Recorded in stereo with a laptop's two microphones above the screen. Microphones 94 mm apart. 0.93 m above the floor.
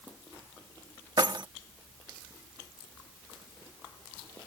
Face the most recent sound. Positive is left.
turn(degrees=-50)  # may be behind; listen again after turning